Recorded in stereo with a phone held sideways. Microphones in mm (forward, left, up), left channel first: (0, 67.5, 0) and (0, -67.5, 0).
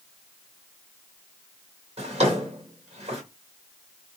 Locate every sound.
2.0 s a drawer: 45° right (ahead or behind), 1.8 m